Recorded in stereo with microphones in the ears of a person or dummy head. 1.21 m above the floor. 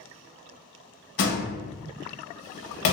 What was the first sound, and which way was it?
A door slam, 60° left (ahead or behind).